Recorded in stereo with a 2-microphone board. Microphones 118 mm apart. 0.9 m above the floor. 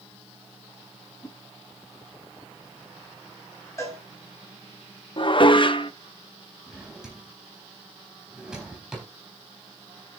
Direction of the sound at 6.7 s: 5° right (ahead or behind).